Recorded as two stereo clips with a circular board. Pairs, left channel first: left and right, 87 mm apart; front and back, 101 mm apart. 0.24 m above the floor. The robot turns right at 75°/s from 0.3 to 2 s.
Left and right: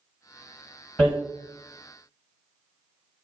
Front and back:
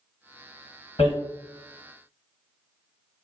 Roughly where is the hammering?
Ahead.